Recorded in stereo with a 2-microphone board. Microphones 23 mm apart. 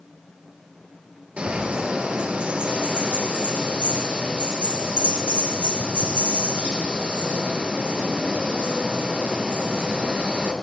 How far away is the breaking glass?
I don't hear breaking glass.